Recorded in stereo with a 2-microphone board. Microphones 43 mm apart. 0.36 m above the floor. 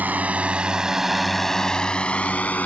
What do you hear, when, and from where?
0.0 s a drone: 40° right (ahead or behind); by 2.6 s 35° left (ahead or behind)